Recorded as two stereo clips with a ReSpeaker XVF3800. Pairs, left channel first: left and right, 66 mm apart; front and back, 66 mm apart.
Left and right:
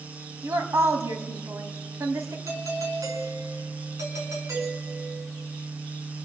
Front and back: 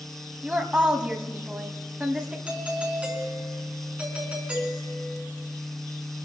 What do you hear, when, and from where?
0.4 s a woman speaking: 115° right, 1.7 m
2.5 s a doorbell: 115° right, 4.5 m